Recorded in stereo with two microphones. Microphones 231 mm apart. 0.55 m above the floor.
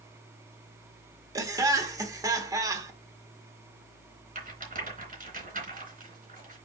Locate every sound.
1.4 s laughter: 15° right (ahead or behind), 1.4 m
4.3 s a rattle: 35° right (ahead or behind), 3.5 m